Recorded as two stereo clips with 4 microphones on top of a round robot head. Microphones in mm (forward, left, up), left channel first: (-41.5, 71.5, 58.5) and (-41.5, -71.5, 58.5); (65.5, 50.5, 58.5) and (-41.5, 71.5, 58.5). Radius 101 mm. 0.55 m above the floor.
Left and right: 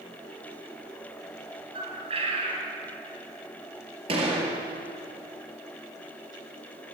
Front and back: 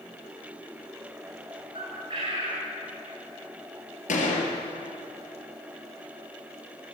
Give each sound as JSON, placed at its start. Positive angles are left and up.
{"t": 1.7, "sound": "a bird", "azimuth_deg": -135, "distance_m": 4.5}
{"t": 4.1, "sound": "a gunshot", "azimuth_deg": -30, "distance_m": 5.0}